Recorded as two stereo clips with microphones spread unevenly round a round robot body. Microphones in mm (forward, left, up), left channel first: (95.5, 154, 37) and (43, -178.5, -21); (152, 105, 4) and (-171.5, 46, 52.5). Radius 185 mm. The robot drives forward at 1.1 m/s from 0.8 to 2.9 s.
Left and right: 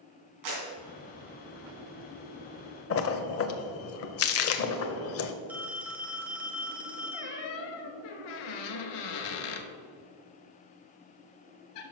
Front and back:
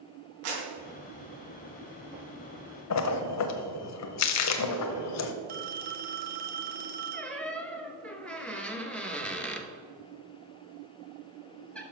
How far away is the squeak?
About 0.9 m.